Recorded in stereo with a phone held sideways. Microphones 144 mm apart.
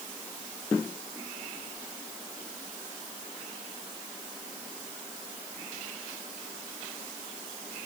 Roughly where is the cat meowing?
No cat meowing in this recording.